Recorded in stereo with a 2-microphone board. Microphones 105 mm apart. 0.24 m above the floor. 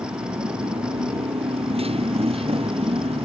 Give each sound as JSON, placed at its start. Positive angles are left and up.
{"t": 0.0, "sound": "a motorcycle", "side_deg": -65}